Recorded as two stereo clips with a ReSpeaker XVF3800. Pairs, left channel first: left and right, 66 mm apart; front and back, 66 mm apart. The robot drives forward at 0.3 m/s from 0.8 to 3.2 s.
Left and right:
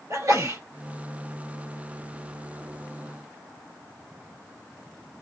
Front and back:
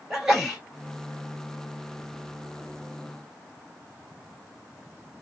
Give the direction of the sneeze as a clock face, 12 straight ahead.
3 o'clock.